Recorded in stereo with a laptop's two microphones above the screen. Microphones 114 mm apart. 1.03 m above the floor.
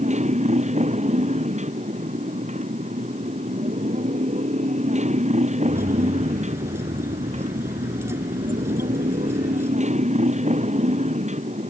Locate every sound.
0.0 s a motorcycle: 90° right
5.6 s keys jangling: 25° right (ahead or behind)